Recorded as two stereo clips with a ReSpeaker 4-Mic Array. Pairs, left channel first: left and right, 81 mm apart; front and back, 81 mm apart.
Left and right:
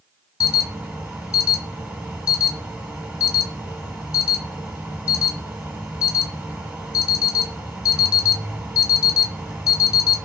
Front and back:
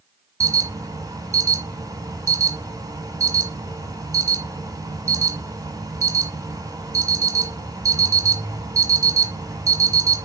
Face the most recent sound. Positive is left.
turn(degrees=-160)